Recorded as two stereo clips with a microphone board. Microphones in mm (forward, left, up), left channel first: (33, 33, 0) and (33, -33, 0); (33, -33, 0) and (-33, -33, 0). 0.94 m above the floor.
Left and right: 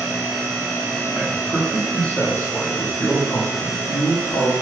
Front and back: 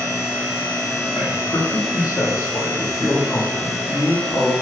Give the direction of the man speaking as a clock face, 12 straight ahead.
12 o'clock.